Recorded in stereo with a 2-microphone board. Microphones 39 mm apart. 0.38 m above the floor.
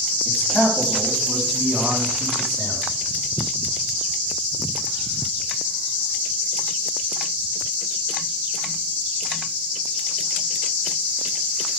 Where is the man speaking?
20° left (ahead or behind), 3 m; by 2.8 s centre (ahead or behind), 4.5 m.